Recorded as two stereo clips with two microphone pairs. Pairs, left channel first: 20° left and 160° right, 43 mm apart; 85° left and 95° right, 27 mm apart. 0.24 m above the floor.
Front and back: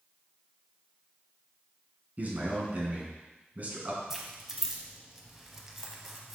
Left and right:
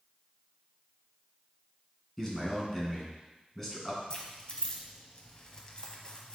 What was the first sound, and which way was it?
A man speaking, 160° left.